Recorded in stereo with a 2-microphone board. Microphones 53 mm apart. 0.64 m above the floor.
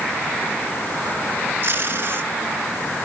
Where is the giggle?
No giggle in this recording.